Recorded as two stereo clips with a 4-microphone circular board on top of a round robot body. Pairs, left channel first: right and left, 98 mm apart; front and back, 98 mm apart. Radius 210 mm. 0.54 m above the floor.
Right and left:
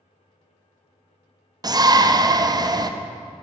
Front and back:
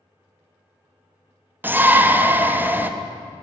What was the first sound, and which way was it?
A shout, 115° left.